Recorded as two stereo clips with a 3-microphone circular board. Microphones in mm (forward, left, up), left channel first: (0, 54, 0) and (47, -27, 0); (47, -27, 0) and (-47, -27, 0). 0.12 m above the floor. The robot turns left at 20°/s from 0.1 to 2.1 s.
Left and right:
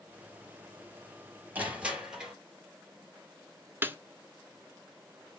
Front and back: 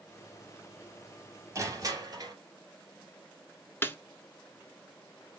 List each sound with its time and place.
1.6 s crushing: 130° right, 2.5 m; by 2.4 s 140° right, 2.5 m
3.8 s a snare drum: 30° right, 0.7 m